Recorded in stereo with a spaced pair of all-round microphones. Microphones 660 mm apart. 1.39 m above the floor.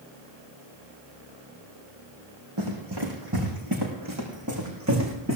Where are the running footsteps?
40° right (ahead or behind), 5.5 m; by 5.4 s 20° right (ahead or behind), 6 m.